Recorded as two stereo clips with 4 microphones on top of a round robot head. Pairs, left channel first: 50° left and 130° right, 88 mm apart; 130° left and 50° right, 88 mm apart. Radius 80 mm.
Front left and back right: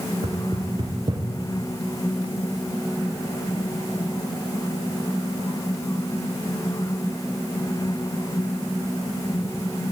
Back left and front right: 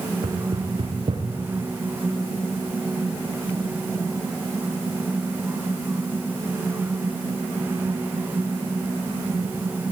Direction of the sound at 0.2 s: 90° right.